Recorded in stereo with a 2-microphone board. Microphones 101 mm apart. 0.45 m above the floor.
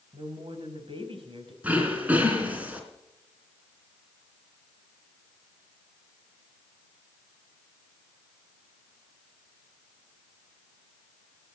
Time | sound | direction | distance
0.1 | a woman speaking | 65° right (ahead or behind) | 3 m
1.6 | throat clearing | 15° right (ahead or behind) | 3 m